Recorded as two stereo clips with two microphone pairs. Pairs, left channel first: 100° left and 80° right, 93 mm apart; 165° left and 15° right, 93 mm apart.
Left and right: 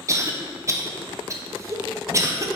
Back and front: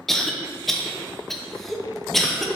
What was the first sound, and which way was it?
A cough, 105° right.